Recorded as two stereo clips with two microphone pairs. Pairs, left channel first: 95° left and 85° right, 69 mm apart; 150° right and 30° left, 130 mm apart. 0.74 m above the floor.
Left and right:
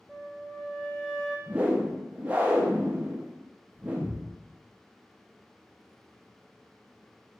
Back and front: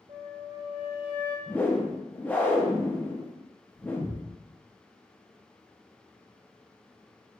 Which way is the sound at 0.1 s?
10° left.